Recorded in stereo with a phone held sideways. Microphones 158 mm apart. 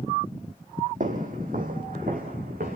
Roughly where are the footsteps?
Right.